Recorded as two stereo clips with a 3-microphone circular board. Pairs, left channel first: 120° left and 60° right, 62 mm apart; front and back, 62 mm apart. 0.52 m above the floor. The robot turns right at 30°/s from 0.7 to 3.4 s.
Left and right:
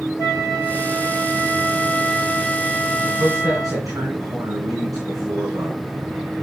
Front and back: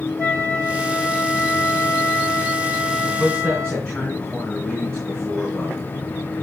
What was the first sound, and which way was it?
A flute, 140° left.